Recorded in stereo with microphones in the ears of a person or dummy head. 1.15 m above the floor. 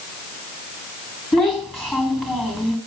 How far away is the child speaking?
About 2 m.